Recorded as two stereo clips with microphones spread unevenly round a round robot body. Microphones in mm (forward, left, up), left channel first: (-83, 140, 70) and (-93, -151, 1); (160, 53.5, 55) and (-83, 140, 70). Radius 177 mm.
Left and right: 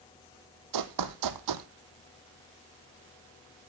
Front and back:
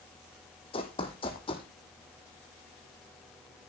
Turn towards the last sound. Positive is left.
turn(degrees=-95)